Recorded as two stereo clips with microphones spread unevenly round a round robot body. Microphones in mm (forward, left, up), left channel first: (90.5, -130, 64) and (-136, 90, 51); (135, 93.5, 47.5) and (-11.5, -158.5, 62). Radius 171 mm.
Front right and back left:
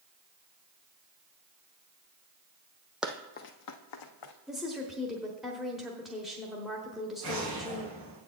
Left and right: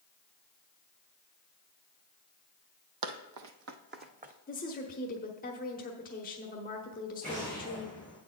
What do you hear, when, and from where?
3.0 s running footsteps: 135° right, 0.8 m; by 4.3 s 55° right, 1.4 m
4.5 s a woman speaking: 50° left, 1.2 m
7.2 s an explosion: 170° left, 4.5 m